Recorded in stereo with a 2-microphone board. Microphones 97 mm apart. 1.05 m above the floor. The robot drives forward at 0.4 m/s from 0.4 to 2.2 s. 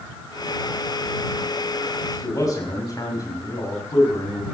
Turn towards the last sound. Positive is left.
turn(degrees=40)  # may be behind; listen again after turning